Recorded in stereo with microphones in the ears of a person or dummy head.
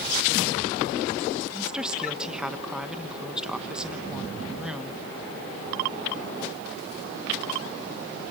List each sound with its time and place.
1.5 s a woman speaking: 5° right (ahead or behind), 1.2 m